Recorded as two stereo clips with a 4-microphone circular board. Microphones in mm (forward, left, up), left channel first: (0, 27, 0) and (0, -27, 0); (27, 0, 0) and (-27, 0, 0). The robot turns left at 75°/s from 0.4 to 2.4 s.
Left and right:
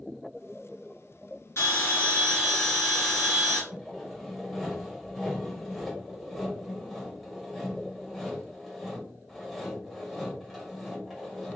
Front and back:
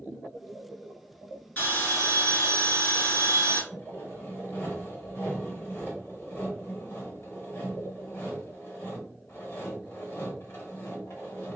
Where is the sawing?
Straight ahead, 1.8 m.